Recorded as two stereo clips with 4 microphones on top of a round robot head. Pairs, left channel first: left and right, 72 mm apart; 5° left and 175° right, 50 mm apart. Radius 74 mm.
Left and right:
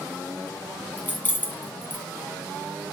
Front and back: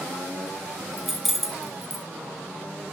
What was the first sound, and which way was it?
Keys jangling, 105° left.